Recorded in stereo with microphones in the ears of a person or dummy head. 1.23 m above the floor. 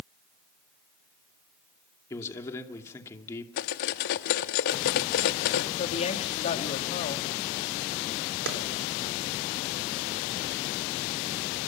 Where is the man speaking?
15° left (ahead or behind), 2.5 m.